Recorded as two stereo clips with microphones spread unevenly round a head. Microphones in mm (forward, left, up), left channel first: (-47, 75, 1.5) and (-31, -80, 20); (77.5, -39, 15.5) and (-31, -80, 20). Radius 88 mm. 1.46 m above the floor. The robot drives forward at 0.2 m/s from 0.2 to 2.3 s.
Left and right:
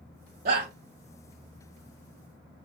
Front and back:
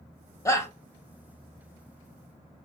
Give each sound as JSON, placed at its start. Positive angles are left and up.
{"t": 0.5, "sound": "a shout", "azimuth_deg": -35, "distance_m": 0.6}